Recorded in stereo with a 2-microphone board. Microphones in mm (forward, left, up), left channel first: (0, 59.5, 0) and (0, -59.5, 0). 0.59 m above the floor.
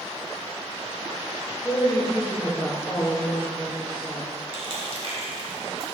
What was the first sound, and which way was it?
A woman speaking, 30° left (ahead or behind).